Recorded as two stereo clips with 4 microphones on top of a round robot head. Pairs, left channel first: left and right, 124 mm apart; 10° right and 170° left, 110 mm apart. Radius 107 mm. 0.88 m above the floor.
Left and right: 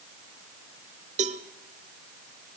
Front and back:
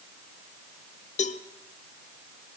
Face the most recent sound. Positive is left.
turn(degrees=-45)